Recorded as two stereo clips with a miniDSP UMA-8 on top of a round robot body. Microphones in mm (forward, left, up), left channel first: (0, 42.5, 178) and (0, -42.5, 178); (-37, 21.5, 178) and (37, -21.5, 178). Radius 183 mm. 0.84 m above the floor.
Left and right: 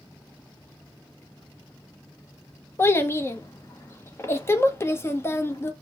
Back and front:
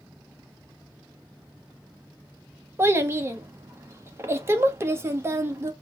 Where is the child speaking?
30° left, 1.0 m.